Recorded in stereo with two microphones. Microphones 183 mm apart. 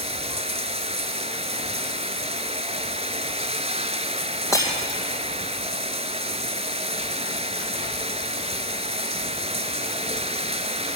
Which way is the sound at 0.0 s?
35° right (ahead or behind).